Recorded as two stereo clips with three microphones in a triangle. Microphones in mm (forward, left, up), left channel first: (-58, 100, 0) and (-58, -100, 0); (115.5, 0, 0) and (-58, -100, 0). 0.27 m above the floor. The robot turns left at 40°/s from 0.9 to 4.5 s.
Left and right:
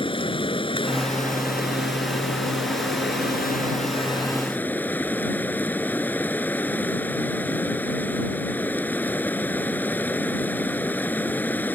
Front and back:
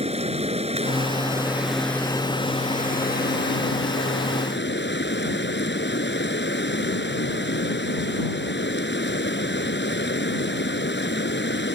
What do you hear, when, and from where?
0.0 s running water: 155° left; by 11.8 s 10° left